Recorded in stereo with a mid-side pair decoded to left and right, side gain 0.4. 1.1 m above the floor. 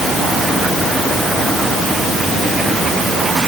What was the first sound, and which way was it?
Only background noise.